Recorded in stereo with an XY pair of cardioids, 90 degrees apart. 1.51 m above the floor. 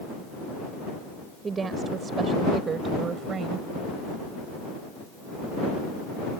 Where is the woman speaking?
40° right; by 3.7 s 60° right.